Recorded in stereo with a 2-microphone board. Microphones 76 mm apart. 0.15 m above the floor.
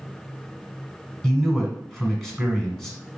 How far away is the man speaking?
About 1.1 m.